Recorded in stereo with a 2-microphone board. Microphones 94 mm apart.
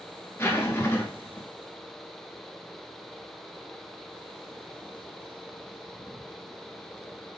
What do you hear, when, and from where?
0.4 s a zipper: 25° left (ahead or behind), 1.1 m